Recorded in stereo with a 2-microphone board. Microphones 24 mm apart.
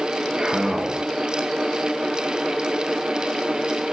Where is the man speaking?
40° right (ahead or behind), 2.5 m.